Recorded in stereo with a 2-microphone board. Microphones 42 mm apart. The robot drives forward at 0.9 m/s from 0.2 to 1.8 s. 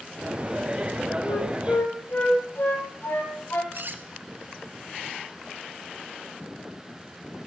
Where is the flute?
65° left (ahead or behind), 3 m; by 3.6 s 60° left (ahead or behind), 3.5 m.